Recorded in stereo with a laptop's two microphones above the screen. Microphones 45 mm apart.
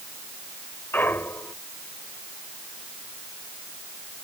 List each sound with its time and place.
0.9 s a clunk: 55° left (ahead or behind)